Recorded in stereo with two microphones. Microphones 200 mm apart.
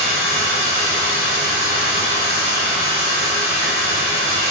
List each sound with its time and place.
0.0 s running water: 10° right (ahead or behind), 1.1 m